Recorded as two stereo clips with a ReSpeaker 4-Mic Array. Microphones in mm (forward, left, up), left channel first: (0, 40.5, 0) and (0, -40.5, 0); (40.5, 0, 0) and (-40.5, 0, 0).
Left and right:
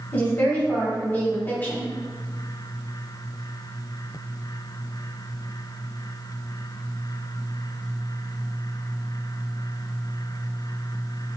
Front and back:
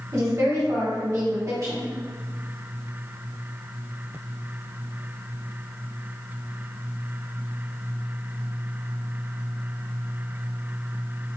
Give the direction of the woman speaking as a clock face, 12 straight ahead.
7 o'clock.